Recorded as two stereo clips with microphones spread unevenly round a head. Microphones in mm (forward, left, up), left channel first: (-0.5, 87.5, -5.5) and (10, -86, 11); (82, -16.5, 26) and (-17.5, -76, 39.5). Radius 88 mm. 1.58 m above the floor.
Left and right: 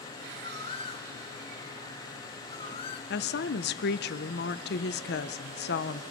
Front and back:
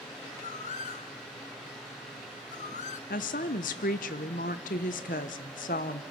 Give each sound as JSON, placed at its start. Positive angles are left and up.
{"t": 0.4, "sound": "a bird", "azimuth_deg": 35, "distance_m": 1.1}
{"t": 3.1, "sound": "a woman speaking", "azimuth_deg": 65, "distance_m": 1.0}